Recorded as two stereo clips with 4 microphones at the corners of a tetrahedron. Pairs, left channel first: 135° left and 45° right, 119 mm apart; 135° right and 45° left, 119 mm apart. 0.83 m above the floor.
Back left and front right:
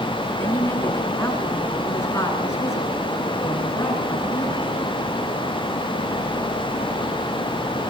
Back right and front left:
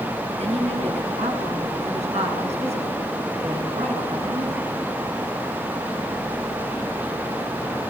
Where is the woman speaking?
65° left, 8.5 m; by 4.6 s 70° left, 11 m.